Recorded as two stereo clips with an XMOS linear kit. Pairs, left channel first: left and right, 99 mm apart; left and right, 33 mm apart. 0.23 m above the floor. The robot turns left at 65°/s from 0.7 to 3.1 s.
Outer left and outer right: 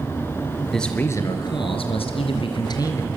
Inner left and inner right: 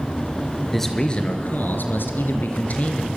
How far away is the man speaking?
About 3.5 m.